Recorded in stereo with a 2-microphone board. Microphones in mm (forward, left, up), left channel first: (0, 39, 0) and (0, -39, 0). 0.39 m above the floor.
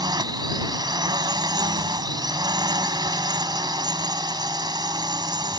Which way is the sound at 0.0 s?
65° right (ahead or behind).